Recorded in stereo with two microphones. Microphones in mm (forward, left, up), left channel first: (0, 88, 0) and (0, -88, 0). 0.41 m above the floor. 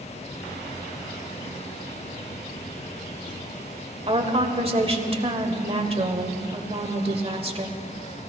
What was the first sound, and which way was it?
A woman speaking, 35° right (ahead or behind).